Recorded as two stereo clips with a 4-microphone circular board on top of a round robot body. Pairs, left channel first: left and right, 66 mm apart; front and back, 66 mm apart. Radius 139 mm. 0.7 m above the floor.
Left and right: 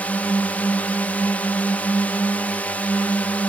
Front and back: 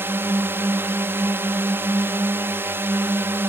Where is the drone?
145° left.